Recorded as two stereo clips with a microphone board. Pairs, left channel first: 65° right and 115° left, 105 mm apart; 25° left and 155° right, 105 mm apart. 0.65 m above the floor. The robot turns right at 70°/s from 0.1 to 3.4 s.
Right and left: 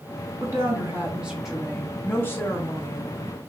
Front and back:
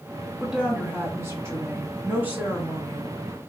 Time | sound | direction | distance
0.4 | a woman speaking | 120° left | 1.0 m